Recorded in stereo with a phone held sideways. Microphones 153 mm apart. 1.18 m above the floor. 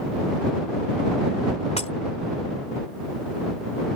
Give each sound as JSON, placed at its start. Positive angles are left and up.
{"t": 1.8, "sound": "breaking glass", "side_deg": 45}